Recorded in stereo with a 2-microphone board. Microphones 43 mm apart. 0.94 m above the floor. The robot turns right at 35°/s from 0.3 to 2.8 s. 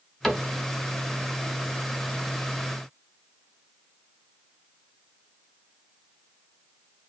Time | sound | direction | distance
0.2 | a cupboard door | 5° left (ahead or behind) | 0.9 m